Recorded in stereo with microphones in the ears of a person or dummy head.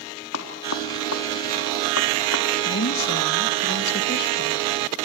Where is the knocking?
85° left, 4 m.